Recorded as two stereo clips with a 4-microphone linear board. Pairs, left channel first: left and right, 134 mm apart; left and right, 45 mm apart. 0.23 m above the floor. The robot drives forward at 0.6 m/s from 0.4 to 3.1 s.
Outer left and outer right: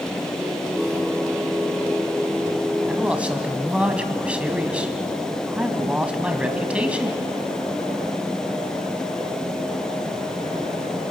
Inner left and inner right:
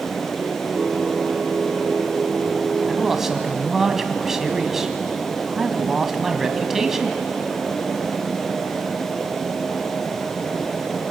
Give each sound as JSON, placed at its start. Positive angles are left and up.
{"t": 2.9, "sound": "a man speaking", "side_deg": -10, "distance_m": 1.9}